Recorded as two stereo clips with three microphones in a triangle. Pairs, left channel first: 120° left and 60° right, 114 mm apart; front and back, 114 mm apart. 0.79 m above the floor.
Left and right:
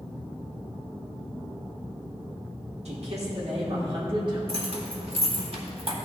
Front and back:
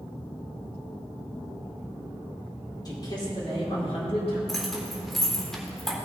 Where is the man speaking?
55° right, 2.5 m; by 4.4 s 20° right, 2.5 m.